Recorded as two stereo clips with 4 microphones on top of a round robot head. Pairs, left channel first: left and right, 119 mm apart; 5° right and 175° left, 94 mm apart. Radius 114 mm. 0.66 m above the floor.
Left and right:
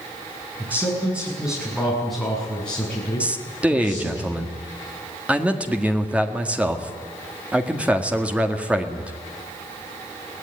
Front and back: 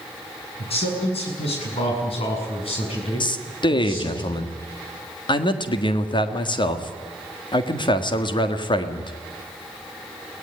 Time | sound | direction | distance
0.6 | a man speaking | 15° right | 8 m
3.2 | a man speaking | 10° right | 1.8 m